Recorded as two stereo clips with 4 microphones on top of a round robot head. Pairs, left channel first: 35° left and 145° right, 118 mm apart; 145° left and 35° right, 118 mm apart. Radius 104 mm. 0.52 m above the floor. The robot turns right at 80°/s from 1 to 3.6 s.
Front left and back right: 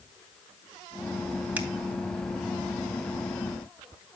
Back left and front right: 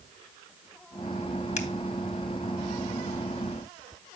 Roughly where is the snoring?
I don't hear snoring.